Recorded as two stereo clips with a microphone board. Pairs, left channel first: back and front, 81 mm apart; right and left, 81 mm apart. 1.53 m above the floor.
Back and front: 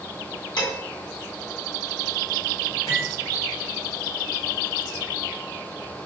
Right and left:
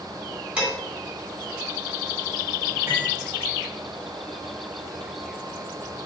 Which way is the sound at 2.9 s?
140° left.